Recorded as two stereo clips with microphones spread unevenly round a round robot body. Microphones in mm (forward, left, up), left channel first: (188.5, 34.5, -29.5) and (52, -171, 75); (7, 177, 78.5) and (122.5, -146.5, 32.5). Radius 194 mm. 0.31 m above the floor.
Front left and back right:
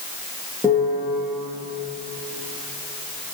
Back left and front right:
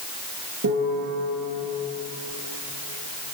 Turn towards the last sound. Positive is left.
turn(degrees=-25)